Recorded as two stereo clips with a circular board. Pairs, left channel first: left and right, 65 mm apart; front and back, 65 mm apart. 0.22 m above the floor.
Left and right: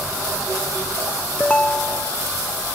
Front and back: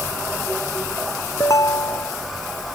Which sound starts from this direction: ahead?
A ringtone, at 1.4 s.